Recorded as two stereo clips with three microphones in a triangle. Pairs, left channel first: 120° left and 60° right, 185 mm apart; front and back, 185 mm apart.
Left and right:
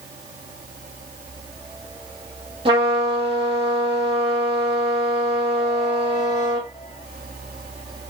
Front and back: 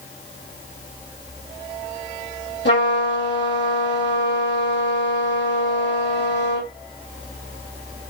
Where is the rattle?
I don't hear a rattle.